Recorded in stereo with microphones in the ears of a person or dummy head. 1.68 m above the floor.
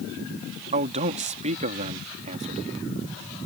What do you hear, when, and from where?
0.7 s a man speaking: 35° right (ahead or behind)